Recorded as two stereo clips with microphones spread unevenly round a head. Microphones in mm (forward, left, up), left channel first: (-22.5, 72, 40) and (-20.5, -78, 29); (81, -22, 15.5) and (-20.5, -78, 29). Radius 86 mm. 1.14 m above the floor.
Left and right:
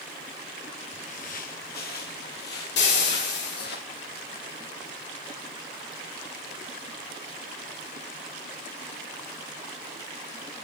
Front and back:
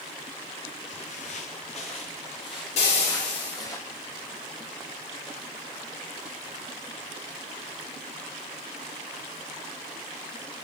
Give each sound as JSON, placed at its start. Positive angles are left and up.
{"t": 0.9, "sound": "footsteps", "azimuth_deg": 55, "distance_m": 1.6}
{"t": 2.8, "sound": "frying", "azimuth_deg": 75, "distance_m": 5.0}